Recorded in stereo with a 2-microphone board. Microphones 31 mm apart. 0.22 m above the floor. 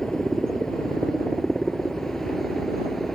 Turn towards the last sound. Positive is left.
turn(degrees=5)  # may be behind; listen again after turning